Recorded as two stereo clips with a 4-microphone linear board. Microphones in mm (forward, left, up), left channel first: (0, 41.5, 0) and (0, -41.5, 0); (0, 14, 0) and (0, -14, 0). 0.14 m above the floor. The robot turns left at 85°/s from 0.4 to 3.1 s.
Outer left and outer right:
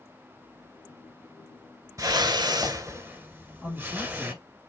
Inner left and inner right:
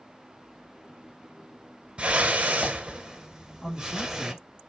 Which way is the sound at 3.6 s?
15° right (ahead or behind).